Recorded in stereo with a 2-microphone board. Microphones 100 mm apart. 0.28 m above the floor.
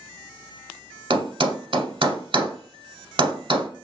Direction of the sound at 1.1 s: 60° right (ahead or behind).